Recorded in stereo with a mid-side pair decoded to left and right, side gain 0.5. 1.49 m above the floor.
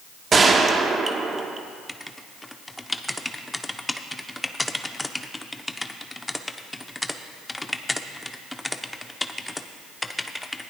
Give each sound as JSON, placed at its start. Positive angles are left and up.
{"t": 0.3, "sound": "a gunshot", "azimuth_deg": -35, "distance_m": 1.2}
{"t": 1.9, "sound": "writing", "azimuth_deg": 10, "distance_m": 0.7}